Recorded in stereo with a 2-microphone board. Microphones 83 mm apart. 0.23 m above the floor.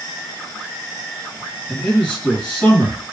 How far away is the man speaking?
About 1.2 m.